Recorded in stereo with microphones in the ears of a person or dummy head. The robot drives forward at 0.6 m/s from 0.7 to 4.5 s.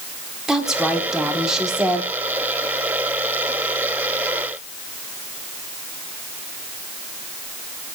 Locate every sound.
0.5 s a woman speaking: 5° right (ahead or behind), 4 m